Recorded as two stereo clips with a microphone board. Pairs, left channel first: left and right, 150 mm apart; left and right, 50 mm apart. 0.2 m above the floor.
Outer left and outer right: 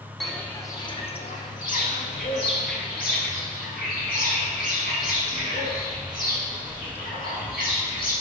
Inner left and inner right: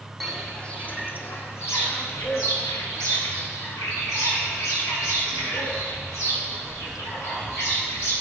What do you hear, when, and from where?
0.2 s footsteps: centre (ahead or behind), 0.7 m; by 8.1 s 75° left (ahead or behind), 4.5 m